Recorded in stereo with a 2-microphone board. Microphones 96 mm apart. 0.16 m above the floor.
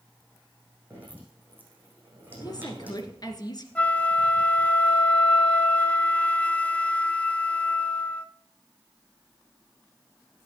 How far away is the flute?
About 0.7 m.